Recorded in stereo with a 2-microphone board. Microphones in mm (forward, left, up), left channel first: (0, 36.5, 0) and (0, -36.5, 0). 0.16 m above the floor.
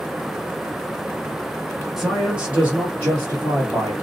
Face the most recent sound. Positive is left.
turn(degrees=-40)  # may be behind; listen again after turning